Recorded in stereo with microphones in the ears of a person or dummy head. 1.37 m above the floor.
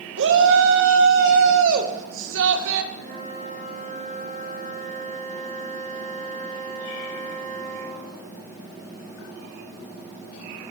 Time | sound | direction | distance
0.2 | a shout | 70° right (ahead or behind) | 0.9 m
2.9 | a flute | 50° right (ahead or behind) | 3 m